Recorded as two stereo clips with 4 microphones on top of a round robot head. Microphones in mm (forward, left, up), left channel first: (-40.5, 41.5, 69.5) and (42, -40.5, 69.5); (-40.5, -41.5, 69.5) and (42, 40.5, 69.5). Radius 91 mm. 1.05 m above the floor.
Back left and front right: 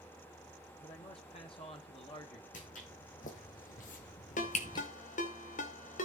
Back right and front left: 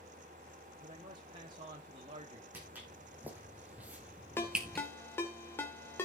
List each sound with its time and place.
0.8 s a man speaking: 95° left, 2.5 m
2.5 s footsteps: 120° left, 4 m; by 4.9 s 140° left, 1.0 m
4.4 s a ringtone: 155° left, 2 m